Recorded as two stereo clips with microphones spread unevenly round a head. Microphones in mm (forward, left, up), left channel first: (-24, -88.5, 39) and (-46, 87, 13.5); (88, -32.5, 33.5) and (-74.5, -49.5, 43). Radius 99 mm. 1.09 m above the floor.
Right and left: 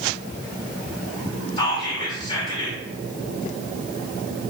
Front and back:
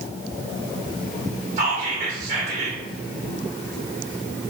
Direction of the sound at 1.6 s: 145° right.